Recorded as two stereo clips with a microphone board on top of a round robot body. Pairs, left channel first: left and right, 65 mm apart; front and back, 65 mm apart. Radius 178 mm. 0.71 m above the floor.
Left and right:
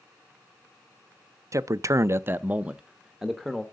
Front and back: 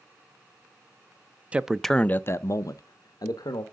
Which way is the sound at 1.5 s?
110° right.